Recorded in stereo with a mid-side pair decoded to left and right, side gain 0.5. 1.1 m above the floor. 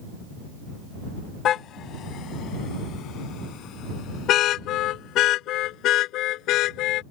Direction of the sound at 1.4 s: 65° left.